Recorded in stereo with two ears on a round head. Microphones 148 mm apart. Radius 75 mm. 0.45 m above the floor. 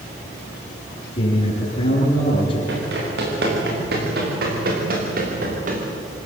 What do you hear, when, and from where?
1.1 s a man speaking: 30° left (ahead or behind), 7 m
2.7 s running footsteps: 70° right (ahead or behind), 9.5 m; by 5.8 s 45° right (ahead or behind), 6 m